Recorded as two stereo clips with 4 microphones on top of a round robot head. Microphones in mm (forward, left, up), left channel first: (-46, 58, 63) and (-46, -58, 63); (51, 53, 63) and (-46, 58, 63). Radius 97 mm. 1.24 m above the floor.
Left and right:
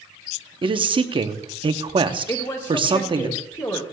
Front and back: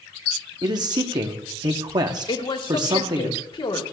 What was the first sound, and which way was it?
A man speaking, 130° right.